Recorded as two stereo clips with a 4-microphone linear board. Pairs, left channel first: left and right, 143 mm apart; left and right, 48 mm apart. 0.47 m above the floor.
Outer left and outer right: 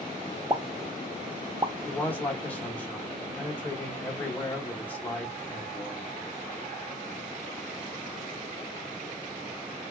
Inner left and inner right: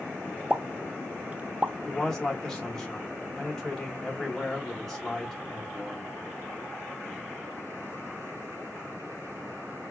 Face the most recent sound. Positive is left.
turn(degrees=10)  # may be behind; listen again after turning